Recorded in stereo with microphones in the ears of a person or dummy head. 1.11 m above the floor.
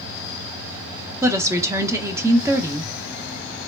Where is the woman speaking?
15° right (ahead or behind), 0.7 m.